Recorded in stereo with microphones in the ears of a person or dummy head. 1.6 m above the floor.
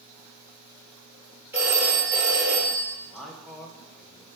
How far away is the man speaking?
About 1.3 m.